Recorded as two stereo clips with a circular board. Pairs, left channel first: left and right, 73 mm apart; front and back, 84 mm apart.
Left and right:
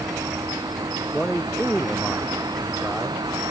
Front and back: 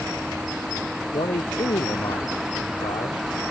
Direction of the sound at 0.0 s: 95° right.